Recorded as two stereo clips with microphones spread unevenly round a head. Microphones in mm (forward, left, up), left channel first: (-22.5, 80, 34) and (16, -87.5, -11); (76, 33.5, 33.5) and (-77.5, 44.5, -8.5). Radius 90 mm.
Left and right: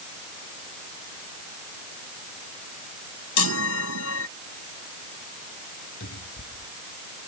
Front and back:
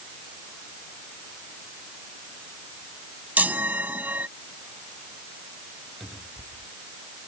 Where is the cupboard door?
85° left.